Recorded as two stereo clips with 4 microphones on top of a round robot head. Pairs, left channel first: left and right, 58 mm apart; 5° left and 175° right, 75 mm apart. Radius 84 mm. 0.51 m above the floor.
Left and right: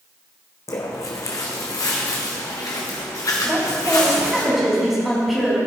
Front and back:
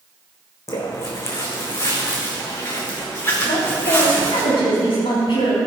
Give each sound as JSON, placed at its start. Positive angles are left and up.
{"t": 0.7, "sound": "footsteps", "azimuth_deg": 55, "distance_m": 1.8}
{"t": 3.4, "sound": "a woman speaking", "azimuth_deg": -5, "distance_m": 3.5}